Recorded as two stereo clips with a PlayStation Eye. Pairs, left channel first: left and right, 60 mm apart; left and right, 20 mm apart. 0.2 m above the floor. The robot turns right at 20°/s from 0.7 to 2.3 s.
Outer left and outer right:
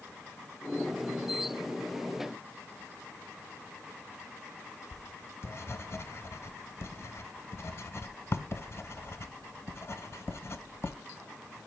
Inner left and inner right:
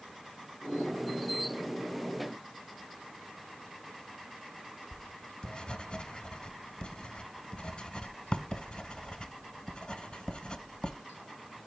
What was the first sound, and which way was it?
Writing, 45° left (ahead or behind).